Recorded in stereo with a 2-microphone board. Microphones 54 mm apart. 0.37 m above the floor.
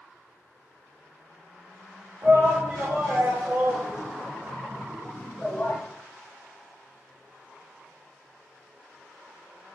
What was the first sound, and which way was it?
A shout, 50° right (ahead or behind).